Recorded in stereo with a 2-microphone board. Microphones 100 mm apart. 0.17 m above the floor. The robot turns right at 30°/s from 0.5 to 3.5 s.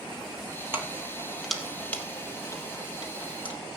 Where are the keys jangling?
20° right (ahead or behind), 3 m; by 3.5 s 60° left (ahead or behind), 3 m.